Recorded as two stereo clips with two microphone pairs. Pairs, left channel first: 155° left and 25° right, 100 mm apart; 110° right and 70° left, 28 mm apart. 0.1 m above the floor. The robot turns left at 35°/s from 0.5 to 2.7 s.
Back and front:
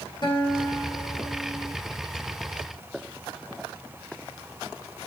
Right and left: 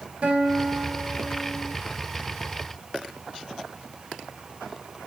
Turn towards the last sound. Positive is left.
turn(degrees=35)